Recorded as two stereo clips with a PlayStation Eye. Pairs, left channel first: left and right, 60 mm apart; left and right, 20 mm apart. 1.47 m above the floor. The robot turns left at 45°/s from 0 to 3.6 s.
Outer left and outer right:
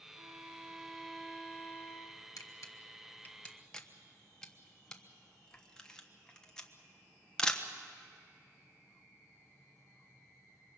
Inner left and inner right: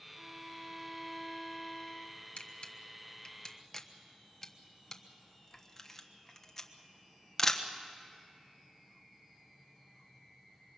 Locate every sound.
0.1 s a violin: 145° right, 2.5 m; by 2.3 s 120° left, 2.5 m
2.4 s a camera shutter: 65° left (ahead or behind), 1.2 m; by 7.7 s 10° left (ahead or behind), 1.2 m